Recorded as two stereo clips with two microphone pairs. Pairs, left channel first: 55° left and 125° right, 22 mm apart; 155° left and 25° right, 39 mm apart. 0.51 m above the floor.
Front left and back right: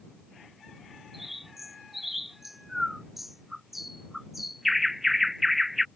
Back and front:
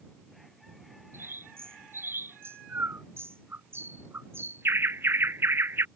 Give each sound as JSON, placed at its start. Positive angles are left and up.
{"t": 1.1, "sound": "a bird", "azimuth_deg": -45}